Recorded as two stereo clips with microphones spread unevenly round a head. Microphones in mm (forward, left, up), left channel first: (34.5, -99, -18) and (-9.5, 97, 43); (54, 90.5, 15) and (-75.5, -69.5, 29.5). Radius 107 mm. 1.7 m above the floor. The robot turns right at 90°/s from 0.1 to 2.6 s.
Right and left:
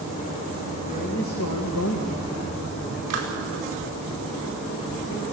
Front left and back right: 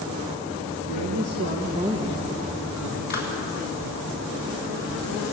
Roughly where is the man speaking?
Behind right.